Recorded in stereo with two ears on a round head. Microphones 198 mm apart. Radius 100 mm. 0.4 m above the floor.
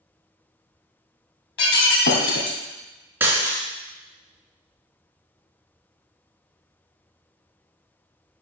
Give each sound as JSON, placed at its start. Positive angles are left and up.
{"t": 1.6, "sound": "breaking glass", "side_deg": 55, "distance_m": 2.0}
{"t": 3.2, "sound": "breaking glass", "side_deg": -10, "distance_m": 3.0}